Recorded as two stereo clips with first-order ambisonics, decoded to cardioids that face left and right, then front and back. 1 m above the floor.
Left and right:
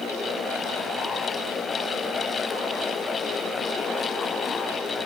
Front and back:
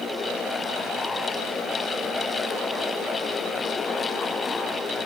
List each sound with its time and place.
Only background noise.